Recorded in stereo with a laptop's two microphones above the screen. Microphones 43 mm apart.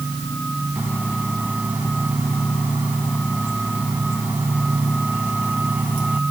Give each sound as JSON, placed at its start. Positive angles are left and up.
{"t": 0.8, "sound": "a microwave", "side_deg": -40}